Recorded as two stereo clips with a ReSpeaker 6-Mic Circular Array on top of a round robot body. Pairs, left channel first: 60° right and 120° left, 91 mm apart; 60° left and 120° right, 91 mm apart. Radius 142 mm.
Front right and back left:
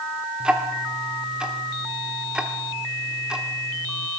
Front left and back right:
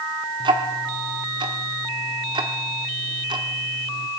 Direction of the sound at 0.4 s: 160° right.